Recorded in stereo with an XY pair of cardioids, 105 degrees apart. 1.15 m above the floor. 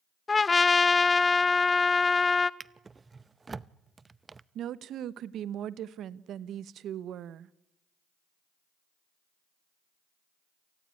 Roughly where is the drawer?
Ahead right.